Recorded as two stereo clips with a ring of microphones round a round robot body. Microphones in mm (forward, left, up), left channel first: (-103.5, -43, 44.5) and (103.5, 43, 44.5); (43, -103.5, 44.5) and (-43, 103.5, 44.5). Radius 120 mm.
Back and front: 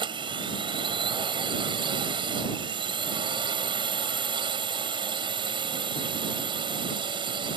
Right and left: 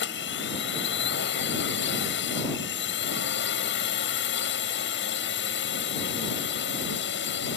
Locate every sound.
0.0 s a drone: 45° right